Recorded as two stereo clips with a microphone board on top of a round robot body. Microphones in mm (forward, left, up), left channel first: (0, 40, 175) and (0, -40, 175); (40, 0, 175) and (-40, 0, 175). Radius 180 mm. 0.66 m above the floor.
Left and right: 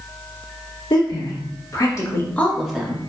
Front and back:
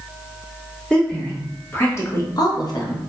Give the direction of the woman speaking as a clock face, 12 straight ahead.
9 o'clock.